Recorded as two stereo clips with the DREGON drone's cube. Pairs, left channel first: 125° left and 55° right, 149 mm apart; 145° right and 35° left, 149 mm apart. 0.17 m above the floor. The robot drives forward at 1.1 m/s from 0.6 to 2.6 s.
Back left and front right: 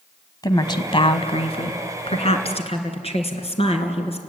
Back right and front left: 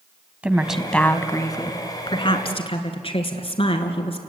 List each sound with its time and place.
0.4 s a woman speaking: 105° left, 1.2 m; by 4.2 s 165° left, 2.5 m